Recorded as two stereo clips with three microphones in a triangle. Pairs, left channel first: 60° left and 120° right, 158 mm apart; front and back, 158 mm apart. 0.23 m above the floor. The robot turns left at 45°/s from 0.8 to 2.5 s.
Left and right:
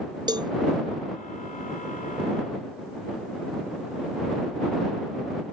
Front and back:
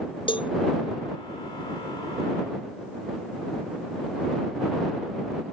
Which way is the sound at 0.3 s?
55° right.